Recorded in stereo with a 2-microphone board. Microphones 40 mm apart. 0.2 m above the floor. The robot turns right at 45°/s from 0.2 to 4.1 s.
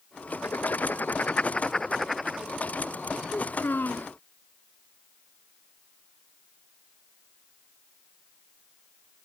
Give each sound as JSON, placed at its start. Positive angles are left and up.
{"t": 0.3, "sound": "writing", "azimuth_deg": 95}
{"t": 3.3, "sound": "a child speaking", "azimuth_deg": 65}